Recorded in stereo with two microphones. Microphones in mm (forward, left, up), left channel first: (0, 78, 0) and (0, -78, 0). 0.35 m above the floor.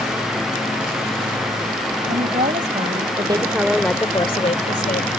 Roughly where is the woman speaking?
Right.